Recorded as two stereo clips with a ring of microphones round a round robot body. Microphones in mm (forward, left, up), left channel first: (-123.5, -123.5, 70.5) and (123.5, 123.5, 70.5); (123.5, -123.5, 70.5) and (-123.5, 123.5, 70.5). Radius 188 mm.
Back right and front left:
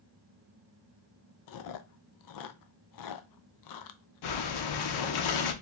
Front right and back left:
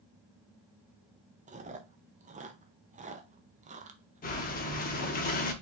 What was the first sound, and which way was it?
Chewing, 155° right.